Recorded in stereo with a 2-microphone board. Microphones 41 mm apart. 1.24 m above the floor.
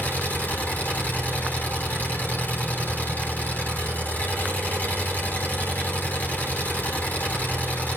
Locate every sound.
0.0 s an engine running: 50° left (ahead or behind), 5 m